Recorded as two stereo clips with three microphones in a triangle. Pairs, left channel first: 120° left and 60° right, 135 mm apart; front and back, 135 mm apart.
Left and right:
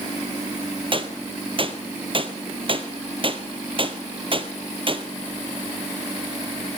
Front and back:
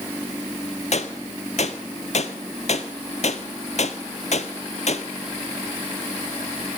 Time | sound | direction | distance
0.9 | a gunshot | 20° right | 0.8 m